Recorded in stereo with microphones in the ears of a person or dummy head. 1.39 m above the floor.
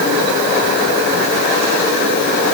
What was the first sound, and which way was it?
Only background noise.